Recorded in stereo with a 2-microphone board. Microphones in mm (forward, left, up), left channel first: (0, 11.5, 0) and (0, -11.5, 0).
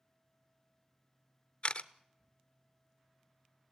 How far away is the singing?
I don't hear singing.